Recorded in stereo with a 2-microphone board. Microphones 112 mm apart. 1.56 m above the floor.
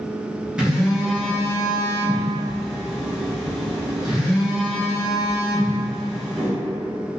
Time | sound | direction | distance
0.6 | a phone buzzing | 10° right (ahead or behind) | 0.8 m